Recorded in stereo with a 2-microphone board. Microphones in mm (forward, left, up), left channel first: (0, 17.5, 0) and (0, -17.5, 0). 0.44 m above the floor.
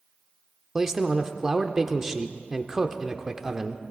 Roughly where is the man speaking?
Centre.